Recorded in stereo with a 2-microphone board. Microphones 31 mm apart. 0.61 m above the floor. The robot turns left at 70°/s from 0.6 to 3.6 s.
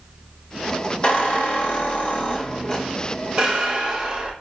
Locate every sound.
1.0 s a squeak: 145° left, 0.9 m; by 4.3 s 35° right, 0.9 m